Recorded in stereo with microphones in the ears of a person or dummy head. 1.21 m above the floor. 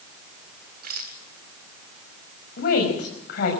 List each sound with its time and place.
0.8 s a rattle: 55° right (ahead or behind), 2.5 m
2.6 s a woman speaking: 55° left (ahead or behind), 6 m